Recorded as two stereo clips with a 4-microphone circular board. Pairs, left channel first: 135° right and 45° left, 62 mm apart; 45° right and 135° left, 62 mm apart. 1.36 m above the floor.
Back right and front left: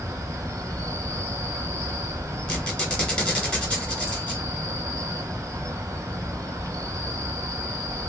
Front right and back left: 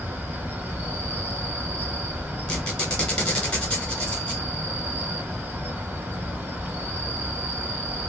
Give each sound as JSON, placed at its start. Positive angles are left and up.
{"t": 0.0, "sound": "an insect", "azimuth_deg": 75, "distance_m": 1.0}
{"t": 2.5, "sound": "a squeak", "azimuth_deg": -85, "distance_m": 1.3}